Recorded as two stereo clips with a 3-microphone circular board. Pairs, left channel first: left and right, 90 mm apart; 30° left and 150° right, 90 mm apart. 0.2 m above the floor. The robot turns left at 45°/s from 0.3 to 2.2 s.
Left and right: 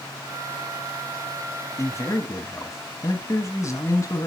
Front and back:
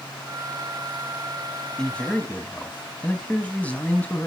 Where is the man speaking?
110° left, 1.2 m; by 4.3 s 90° left, 1.2 m.